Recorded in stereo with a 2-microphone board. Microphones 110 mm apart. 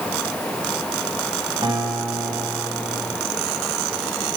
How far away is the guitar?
About 8.5 m.